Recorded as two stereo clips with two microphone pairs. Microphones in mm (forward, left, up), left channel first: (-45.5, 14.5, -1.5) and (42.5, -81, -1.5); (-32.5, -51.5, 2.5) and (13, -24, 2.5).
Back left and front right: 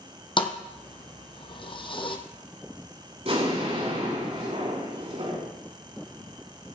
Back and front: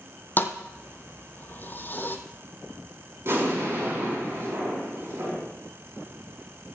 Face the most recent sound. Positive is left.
turn(degrees=-10)